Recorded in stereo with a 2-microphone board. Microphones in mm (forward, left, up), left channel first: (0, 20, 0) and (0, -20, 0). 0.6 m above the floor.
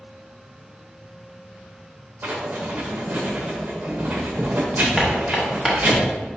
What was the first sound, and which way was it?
Writing, 50° right (ahead or behind).